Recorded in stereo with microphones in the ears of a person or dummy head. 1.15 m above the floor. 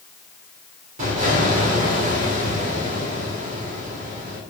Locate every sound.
1.0 s an explosion: 40° right (ahead or behind), 2 m